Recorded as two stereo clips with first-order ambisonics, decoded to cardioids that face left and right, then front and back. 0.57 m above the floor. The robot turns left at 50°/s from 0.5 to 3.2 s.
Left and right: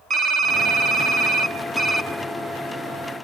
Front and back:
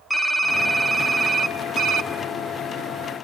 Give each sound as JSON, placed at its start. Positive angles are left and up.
{"t": 0.1, "sound": "typing on a keyboard", "azimuth_deg": -80, "distance_m": 0.9}